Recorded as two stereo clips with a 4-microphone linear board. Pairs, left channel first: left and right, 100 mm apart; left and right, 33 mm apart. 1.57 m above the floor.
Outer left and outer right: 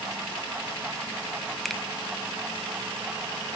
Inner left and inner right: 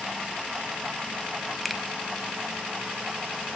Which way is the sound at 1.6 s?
Centre (ahead or behind).